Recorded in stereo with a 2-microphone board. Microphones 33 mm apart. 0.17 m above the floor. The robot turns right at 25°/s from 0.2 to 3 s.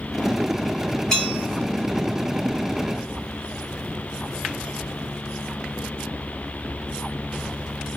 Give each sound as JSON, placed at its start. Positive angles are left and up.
{"t": 1.1, "sound": "a bell", "side_deg": 25, "distance_m": 2.5}